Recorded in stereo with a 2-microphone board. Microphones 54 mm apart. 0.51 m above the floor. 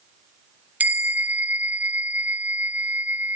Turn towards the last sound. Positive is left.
turn(degrees=-30)  # may be behind; listen again after turning